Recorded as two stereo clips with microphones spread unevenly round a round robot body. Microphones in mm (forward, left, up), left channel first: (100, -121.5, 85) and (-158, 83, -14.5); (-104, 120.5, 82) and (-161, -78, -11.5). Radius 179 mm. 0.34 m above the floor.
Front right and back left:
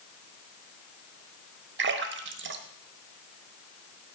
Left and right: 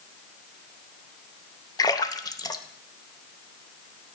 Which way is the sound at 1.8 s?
165° left.